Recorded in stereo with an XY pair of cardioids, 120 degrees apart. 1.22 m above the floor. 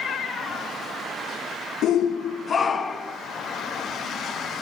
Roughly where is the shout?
Ahead left.